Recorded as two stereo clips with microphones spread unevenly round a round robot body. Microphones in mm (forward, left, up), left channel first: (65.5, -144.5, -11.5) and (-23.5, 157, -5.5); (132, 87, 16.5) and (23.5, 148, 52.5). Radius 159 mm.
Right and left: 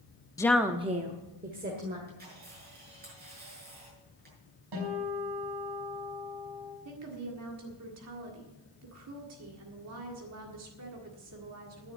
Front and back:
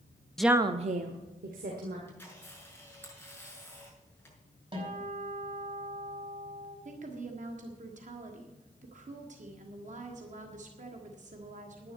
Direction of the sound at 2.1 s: 45° left.